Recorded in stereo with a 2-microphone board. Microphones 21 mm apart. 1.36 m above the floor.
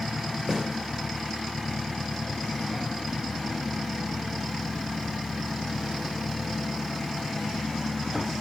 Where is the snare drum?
30° right (ahead or behind), 3.5 m.